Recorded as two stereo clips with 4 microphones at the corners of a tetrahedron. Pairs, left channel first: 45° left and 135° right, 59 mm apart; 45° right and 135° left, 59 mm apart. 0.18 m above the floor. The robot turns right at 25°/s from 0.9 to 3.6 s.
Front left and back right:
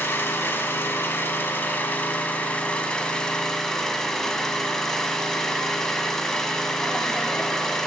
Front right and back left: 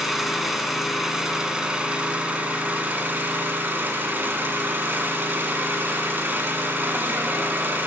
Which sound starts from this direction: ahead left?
An engine running, at 0.0 s.